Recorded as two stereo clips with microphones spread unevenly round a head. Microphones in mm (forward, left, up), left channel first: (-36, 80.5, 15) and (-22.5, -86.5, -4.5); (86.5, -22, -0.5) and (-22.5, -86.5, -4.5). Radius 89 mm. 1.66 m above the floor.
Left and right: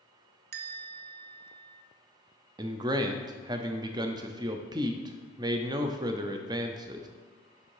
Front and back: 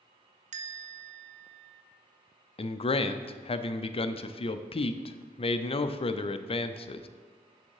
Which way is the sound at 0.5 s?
120° right.